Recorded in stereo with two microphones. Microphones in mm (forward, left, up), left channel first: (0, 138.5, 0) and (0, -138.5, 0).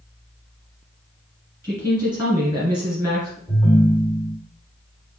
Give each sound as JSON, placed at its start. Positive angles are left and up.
{"t": 1.6, "sound": "a woman speaking", "side_deg": -15, "distance_m": 1.8}
{"t": 3.5, "sound": "a ringtone", "side_deg": 5, "distance_m": 2.5}